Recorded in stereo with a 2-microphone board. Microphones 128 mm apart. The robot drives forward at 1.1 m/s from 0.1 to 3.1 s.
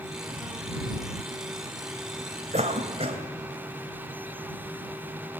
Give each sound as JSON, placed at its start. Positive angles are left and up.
{"t": 2.5, "sound": "a cough", "side_deg": -60, "distance_m": 2.5}